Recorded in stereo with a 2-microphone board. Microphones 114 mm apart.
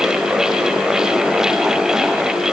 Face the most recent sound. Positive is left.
No sound to turn to.